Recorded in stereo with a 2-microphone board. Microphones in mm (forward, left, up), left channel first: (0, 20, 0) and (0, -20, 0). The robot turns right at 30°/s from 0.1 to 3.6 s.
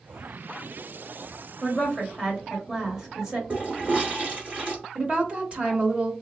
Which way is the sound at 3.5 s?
30° right (ahead or behind).